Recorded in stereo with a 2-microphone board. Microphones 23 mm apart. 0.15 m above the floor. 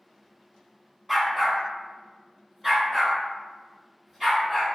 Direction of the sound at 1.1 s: 5° right (ahead or behind).